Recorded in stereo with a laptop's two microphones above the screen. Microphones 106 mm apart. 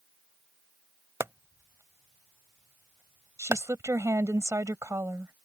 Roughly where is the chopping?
Right.